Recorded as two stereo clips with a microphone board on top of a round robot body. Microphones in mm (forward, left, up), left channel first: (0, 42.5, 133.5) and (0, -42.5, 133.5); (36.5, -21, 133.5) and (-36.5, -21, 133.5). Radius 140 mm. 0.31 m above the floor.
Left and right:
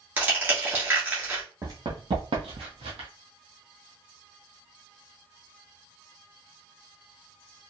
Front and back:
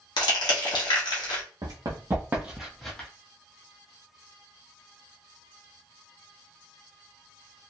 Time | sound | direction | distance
0.2 | crushing | 20° right | 1.1 m
1.6 | running footsteps | 145° right | 1.1 m